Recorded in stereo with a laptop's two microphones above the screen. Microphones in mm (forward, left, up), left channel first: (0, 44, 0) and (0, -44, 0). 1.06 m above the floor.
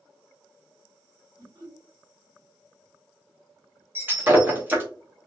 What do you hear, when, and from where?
1.4 s laughter: 50° right (ahead or behind), 1.7 m
4.0 s breaking glass: 20° right (ahead or behind), 0.6 m